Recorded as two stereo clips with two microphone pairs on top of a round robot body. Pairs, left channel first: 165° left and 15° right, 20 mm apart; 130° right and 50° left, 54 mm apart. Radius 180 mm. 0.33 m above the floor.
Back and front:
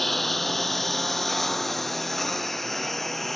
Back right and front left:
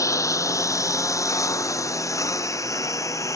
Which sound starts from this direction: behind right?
A lawn mower, at 0.0 s.